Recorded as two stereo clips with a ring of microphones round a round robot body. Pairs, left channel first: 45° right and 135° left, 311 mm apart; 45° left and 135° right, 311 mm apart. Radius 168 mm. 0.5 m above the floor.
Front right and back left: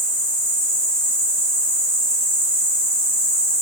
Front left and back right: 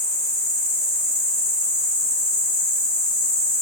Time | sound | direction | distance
0.0 | an insect | 100° right | 1.4 m